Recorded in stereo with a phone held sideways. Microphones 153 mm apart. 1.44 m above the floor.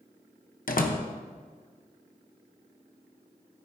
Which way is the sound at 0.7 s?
65° left (ahead or behind).